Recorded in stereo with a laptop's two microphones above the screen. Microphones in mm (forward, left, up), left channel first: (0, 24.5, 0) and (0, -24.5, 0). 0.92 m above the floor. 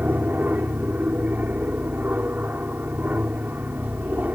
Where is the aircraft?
35° right (ahead or behind).